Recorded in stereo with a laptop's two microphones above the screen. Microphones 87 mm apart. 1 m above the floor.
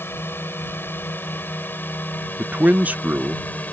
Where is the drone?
25° left (ahead or behind); by 3.7 s 20° left (ahead or behind).